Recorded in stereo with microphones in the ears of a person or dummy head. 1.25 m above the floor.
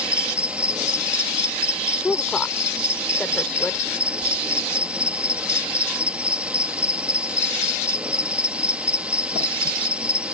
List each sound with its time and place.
0.0 s an insect: 5° right (ahead or behind)
2.0 s a woman speaking: 5° left (ahead or behind)